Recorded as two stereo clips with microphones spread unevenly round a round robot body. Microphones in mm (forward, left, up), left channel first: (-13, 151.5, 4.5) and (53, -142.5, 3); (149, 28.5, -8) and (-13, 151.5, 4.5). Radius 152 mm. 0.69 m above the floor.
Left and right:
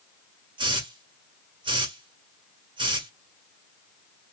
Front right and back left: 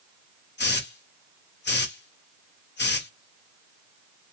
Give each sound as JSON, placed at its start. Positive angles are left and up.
{"t": 0.6, "sound": "a hiss", "azimuth_deg": 0, "distance_m": 1.4}